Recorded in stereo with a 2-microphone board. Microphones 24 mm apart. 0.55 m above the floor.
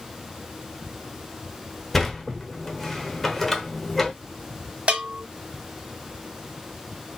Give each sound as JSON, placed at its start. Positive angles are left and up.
{"t": 1.9, "sound": "a sliding door", "side_deg": 15, "distance_m": 1.0}
{"t": 4.9, "sound": "a bell", "side_deg": -65, "distance_m": 1.1}